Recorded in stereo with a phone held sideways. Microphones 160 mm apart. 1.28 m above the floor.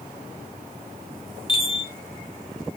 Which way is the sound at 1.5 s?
35° left (ahead or behind).